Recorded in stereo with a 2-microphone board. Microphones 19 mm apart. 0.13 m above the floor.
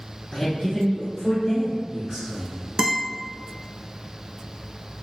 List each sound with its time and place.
0.3 s a man speaking: 30° left (ahead or behind), 1.4 m; by 2.6 s 10° right (ahead or behind), 1.7 m
2.8 s a guitar: 30° right (ahead or behind), 0.5 m